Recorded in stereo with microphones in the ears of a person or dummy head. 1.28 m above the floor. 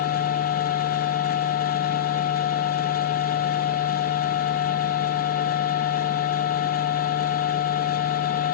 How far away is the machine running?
About 0.7 m.